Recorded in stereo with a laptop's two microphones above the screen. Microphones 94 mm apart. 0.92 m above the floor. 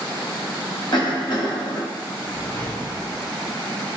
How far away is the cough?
About 1.4 m.